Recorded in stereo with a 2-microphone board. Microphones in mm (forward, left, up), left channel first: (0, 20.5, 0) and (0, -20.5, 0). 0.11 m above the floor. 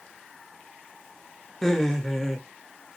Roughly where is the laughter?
Centre.